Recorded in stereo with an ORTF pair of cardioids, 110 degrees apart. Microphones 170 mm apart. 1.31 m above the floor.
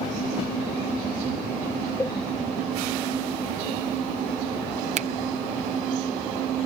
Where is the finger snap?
40° right.